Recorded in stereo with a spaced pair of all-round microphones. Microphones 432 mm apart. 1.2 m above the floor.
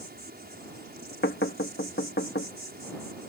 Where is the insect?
20° right (ahead or behind).